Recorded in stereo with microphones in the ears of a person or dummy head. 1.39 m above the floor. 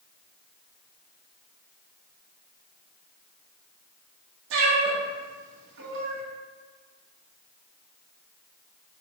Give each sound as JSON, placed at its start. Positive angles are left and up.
{"t": 4.5, "sound": "a cat meowing", "side_deg": -70, "distance_m": 1.5}